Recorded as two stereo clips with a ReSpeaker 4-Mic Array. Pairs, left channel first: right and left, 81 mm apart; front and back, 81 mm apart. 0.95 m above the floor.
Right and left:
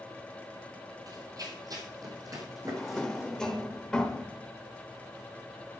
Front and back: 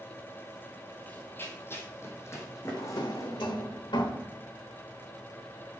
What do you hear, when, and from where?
1.1 s running footsteps: 65° left, 1.8 m; by 3.4 s 50° left, 4 m
2.6 s a drawer: 10° right, 1.4 m